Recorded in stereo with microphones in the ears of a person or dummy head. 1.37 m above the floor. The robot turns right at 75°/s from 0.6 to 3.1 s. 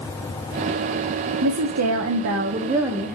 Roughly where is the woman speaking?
Behind right.